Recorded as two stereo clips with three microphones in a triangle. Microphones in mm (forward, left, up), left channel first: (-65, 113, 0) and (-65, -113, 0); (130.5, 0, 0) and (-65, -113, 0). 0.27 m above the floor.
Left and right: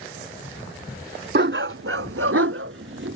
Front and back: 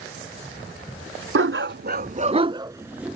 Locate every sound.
1.4 s a dog barking: 130° right; by 3.1 s 65° right